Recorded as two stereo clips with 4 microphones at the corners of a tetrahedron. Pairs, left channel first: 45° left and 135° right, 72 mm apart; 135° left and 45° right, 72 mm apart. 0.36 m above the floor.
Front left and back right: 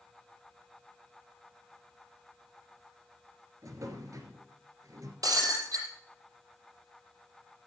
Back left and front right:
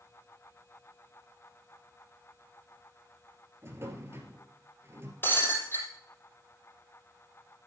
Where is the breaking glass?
165° right, 6 m.